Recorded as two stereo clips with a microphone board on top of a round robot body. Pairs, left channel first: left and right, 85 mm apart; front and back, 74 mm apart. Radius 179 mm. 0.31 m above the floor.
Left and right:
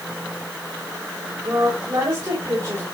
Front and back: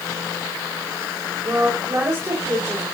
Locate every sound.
1.4 s a woman speaking: 135° right, 4 m